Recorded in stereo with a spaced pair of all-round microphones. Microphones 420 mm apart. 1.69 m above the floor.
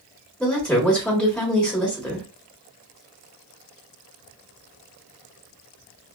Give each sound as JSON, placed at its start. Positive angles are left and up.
{"t": 0.4, "sound": "a woman speaking", "side_deg": 0, "distance_m": 1.3}